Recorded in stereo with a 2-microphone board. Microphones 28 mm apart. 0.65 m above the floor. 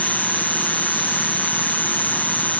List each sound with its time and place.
0.0 s an insect: 85° left